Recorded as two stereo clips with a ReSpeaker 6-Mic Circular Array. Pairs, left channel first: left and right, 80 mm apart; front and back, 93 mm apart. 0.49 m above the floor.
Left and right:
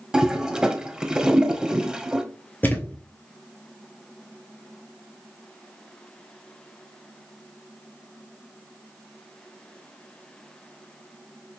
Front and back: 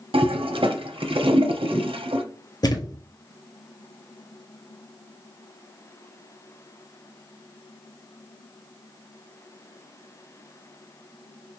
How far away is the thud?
About 0.7 m.